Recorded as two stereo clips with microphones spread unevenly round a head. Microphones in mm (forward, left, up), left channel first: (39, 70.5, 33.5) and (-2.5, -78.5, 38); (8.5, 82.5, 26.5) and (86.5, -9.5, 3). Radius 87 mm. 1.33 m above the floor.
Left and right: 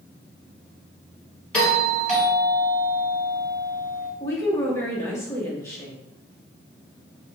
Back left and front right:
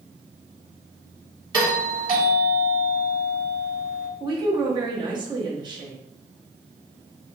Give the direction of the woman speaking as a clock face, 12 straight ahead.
12 o'clock.